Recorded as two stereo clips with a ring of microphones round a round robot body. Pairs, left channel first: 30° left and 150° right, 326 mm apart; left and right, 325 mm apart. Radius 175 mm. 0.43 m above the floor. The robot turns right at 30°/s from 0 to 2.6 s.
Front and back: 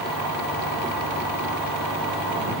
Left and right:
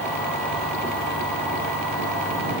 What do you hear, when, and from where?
Only background noise.